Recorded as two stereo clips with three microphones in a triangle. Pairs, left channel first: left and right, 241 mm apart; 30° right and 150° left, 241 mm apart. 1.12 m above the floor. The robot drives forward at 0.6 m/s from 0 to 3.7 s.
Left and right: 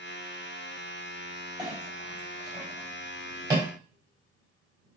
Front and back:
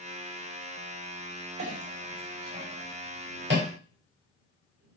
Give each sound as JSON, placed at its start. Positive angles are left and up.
{"t": 1.6, "sound": "a clink", "azimuth_deg": -160, "distance_m": 3.5}